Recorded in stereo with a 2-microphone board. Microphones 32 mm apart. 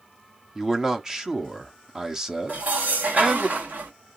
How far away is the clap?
No clap in this recording.